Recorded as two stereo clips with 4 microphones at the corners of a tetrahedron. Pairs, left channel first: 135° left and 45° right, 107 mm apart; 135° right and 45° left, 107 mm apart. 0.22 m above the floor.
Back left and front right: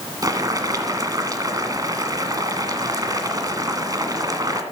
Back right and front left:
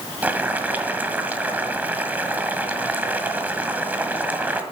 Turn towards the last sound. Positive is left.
turn(degrees=-20)